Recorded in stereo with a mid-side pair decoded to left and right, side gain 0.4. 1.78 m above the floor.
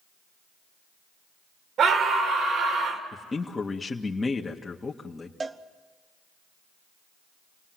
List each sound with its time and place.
1.8 s a scream: 65° right, 3.5 m
3.1 s a man speaking: 25° left, 2 m
5.4 s a cowbell: 35° right, 1.3 m